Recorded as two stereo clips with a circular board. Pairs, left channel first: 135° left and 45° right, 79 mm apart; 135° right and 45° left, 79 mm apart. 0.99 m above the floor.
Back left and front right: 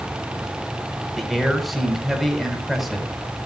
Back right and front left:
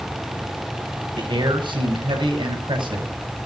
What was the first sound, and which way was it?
A man speaking, 45° left.